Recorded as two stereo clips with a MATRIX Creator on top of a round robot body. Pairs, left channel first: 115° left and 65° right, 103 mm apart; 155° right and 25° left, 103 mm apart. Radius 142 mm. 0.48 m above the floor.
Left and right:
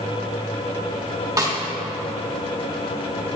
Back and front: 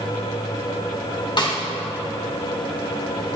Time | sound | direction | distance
1.4 | a snare drum | 120° right | 2 m